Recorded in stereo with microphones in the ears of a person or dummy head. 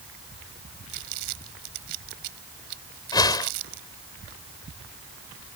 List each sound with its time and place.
0.9 s crumpling: 60° right (ahead or behind)
3.1 s a whoosh: 15° left (ahead or behind)